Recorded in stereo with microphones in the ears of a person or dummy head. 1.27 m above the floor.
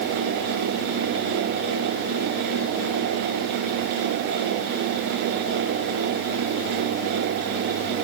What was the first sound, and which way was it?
Only background noise.